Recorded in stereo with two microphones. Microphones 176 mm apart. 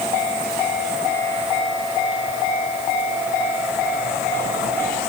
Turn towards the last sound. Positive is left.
No sound to turn to.